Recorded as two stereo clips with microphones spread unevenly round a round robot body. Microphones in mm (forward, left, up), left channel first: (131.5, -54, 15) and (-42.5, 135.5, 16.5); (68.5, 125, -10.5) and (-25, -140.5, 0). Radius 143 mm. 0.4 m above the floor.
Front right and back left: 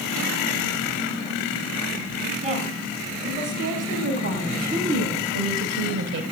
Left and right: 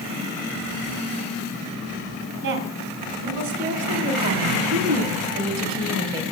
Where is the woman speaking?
160° right, 3.5 m; by 6.2 s 175° left, 1.8 m.